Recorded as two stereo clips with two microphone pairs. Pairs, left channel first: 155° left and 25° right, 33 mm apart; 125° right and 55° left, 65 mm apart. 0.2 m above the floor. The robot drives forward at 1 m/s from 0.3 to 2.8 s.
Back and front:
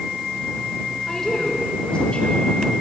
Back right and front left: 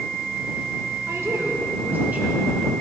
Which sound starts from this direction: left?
A woman speaking, at 1.1 s.